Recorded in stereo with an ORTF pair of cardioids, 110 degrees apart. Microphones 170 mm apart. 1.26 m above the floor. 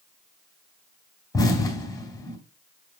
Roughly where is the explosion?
Ahead.